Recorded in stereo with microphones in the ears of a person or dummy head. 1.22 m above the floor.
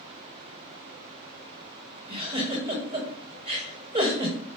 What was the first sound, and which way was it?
A giggle, 30° right (ahead or behind).